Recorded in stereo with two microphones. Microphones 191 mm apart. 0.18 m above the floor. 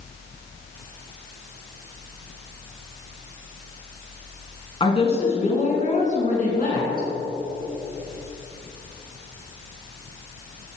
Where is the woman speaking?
30° left (ahead or behind), 2.5 m; by 7.1 s 50° left (ahead or behind), 2.5 m.